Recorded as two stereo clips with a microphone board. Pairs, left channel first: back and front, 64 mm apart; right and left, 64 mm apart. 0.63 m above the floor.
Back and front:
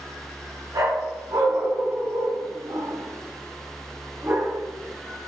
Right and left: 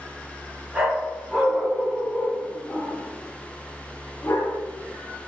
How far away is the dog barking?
About 2.5 m.